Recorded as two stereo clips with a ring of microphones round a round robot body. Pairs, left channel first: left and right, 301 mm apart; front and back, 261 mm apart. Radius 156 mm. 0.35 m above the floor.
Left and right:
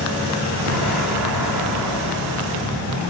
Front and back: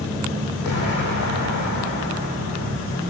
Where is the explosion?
55° right, 6 m.